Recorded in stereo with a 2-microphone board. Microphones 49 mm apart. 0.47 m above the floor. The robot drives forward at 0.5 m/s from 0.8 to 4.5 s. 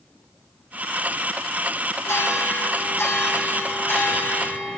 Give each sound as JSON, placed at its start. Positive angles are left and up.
{"t": 2.1, "sound": "a bell", "side_deg": 80, "distance_m": 3.5}